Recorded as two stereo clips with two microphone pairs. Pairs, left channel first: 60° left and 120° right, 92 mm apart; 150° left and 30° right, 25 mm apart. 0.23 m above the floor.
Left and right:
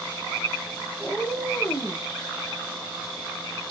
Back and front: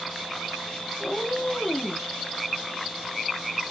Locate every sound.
1.0 s a cat meowing: 135° left, 1.4 m; by 2.0 s 105° left, 0.9 m